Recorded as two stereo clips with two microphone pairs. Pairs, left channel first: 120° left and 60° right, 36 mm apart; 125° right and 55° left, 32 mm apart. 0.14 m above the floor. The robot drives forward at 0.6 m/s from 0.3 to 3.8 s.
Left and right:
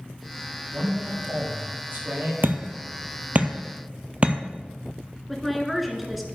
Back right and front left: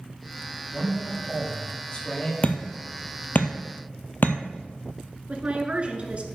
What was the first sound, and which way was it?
A man speaking, 60° right.